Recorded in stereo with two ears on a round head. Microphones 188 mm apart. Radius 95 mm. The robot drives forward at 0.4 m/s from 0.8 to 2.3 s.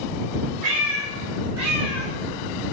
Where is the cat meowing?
40° right (ahead or behind), 1.5 m; by 2.8 s 50° right (ahead or behind), 1.2 m.